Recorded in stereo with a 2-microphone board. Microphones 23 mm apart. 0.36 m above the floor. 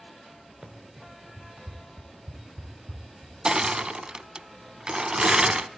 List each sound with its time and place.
0.6 s running footsteps: 55° right (ahead or behind), 2.5 m; by 3.3 s 10° right (ahead or behind), 4 m
3.5 s crushing: 35° right (ahead or behind), 0.5 m